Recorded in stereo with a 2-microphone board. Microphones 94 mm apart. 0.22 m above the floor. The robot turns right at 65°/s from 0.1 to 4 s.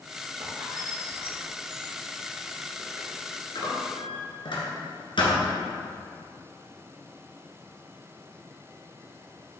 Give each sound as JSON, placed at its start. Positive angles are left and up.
{"t": 0.4, "sound": "a squeak", "side_deg": -35, "distance_m": 2.0}